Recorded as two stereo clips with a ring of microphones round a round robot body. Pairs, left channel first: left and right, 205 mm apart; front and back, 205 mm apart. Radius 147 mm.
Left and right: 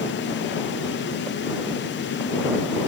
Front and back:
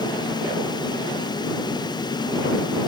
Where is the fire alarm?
I don't hear a fire alarm.